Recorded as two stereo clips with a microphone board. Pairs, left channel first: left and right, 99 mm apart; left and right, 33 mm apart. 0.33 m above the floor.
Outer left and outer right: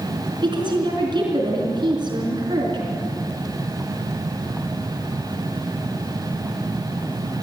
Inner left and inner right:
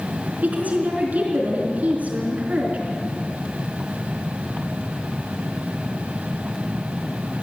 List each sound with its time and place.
0.4 s a woman speaking: 50° right (ahead or behind), 4.5 m